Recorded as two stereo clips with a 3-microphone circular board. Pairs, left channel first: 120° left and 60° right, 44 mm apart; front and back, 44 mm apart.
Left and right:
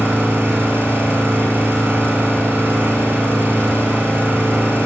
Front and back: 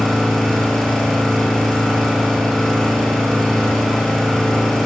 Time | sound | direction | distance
0.0 | an engine running | 85° right | 7.5 m